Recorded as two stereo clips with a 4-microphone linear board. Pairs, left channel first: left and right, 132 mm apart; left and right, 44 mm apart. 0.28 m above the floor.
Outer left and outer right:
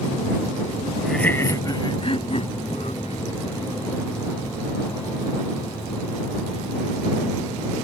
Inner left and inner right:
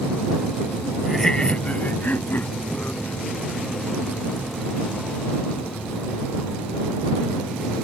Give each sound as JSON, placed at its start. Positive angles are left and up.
{"t": 1.0, "sound": "laughter", "side_deg": 0}